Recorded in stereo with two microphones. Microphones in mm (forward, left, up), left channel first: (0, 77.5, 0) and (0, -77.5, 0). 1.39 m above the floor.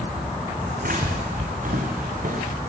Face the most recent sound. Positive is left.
turn(degrees=-60)  # may be behind; listen again after turning